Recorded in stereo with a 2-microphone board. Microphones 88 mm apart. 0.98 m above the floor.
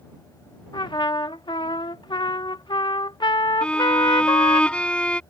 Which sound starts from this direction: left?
A trumpet, at 0.7 s.